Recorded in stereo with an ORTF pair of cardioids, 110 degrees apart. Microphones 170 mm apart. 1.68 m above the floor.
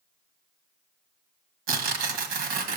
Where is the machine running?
I don't hear a machine running.